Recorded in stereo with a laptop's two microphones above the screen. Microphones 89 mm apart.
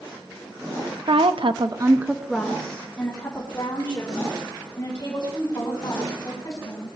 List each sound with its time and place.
1.1 s a woman speaking: 70° right (ahead or behind), 1.1 m; by 6.9 s 30° left (ahead or behind), 7 m